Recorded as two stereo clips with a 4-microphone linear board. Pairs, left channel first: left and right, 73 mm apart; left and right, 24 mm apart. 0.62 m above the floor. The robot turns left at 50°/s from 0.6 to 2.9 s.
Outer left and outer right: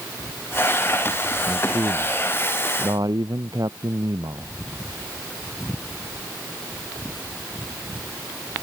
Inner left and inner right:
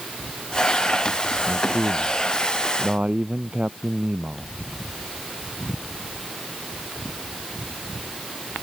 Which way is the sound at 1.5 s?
40° right.